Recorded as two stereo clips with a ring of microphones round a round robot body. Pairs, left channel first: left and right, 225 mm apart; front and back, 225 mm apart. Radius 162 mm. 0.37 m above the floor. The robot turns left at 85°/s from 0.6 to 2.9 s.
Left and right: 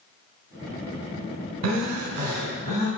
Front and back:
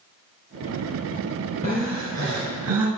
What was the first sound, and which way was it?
Breathing, 70° right.